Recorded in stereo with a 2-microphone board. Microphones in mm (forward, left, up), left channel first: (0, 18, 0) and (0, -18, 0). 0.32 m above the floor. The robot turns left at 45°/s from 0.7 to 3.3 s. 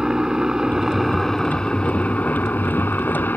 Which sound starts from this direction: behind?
A helicopter, at 0.0 s.